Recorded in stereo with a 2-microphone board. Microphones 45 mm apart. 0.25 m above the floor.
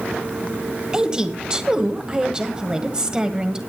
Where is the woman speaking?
15° right (ahead or behind), 1.5 m.